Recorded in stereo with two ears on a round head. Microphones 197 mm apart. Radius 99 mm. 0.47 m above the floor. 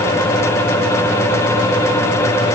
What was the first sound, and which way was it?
Only background noise.